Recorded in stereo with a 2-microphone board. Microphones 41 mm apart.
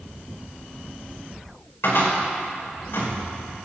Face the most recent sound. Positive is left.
turn(degrees=70)  # may be behind; listen again after turning